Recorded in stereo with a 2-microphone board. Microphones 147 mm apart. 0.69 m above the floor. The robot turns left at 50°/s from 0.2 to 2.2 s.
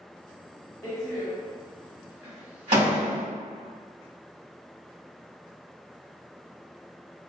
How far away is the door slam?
About 1.3 m.